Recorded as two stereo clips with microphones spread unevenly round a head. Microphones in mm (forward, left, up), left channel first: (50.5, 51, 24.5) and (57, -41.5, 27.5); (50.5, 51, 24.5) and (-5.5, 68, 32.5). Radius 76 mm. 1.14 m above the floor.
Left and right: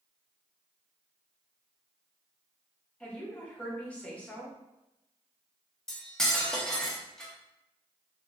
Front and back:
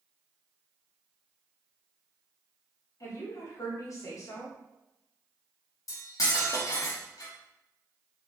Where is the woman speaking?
15° left, 1.1 m.